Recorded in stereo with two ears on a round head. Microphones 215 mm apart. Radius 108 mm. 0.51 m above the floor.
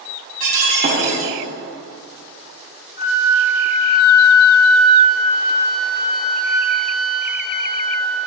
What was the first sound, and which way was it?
Breaking glass, 35° right (ahead or behind).